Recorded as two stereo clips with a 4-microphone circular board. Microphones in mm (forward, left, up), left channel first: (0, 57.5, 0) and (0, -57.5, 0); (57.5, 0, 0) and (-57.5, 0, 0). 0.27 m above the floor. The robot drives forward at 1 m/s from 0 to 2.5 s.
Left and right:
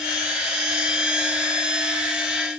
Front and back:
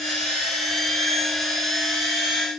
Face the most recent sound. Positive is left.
No sound to turn to.